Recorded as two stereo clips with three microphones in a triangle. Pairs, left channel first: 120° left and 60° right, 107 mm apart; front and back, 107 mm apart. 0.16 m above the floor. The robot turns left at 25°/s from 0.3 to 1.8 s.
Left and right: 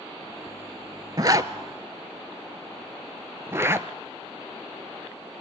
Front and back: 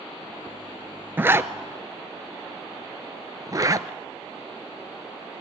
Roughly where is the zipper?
Right.